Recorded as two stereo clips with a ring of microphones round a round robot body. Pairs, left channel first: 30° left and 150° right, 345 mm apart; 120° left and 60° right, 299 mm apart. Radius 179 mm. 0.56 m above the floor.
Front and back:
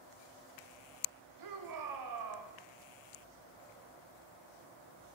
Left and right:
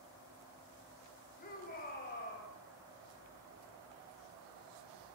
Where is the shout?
175° right, 3.5 m.